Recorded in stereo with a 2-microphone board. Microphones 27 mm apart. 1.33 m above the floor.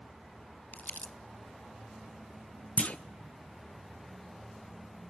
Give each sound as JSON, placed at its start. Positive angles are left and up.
{"t": 0.7, "sound": "crumpling", "side_deg": 85, "distance_m": 0.7}
{"t": 2.8, "sound": "a clunk", "side_deg": 55, "distance_m": 0.5}